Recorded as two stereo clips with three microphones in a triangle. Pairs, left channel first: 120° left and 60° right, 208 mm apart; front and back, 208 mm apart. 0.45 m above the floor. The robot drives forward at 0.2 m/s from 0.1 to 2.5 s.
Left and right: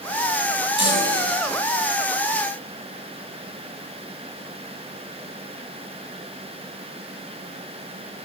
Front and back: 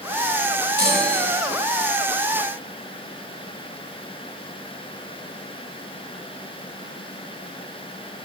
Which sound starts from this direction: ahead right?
A chime, at 0.8 s.